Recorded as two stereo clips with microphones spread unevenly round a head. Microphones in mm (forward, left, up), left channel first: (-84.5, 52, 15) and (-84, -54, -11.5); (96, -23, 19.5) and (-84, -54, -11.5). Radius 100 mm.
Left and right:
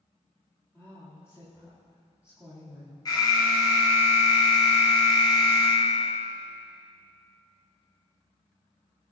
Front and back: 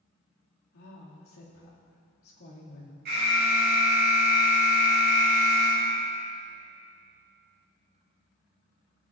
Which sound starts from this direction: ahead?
A woman speaking, at 0.7 s.